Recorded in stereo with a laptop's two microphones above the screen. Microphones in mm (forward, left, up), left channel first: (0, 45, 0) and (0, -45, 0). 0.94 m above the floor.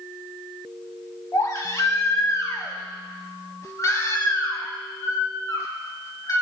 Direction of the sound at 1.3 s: 35° left (ahead or behind).